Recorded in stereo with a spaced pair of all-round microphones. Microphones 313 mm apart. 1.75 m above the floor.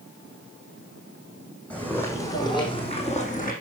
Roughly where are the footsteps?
Centre.